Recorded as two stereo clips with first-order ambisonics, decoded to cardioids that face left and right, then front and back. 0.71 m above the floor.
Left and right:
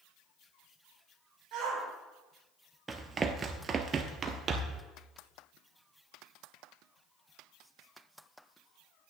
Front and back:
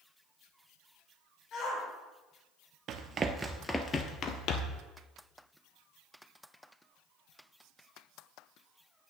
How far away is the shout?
About 3 m.